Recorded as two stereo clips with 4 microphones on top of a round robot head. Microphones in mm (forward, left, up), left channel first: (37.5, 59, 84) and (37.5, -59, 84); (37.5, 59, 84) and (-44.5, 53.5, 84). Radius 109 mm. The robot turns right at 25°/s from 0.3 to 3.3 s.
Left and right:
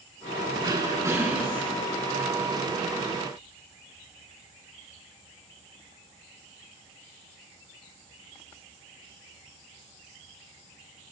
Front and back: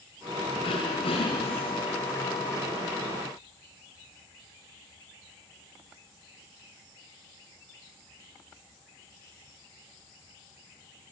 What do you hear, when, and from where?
0.6 s throat clearing: 35° right, 5 m; by 1.7 s 10° right, 5 m